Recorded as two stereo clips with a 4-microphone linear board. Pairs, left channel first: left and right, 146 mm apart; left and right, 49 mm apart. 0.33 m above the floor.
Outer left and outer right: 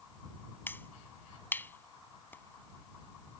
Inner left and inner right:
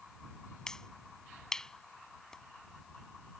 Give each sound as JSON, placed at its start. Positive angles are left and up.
{"t": 0.7, "sound": "a finger snap", "side_deg": 15}